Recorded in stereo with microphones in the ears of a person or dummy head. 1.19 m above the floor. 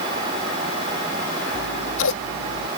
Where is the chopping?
No chopping in this recording.